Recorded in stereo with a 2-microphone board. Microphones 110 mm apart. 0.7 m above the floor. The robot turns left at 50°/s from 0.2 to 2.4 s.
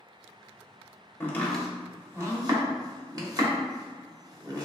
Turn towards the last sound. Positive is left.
turn(degrees=-35)  # may be behind; listen again after turning